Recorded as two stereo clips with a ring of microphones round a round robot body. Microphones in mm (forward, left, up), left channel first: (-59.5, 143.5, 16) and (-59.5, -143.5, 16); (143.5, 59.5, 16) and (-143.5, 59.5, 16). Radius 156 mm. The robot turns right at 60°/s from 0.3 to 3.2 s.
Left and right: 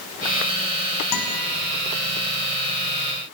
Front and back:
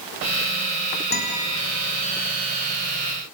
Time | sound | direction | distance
1.1 | a guitar | 55° left | 5 m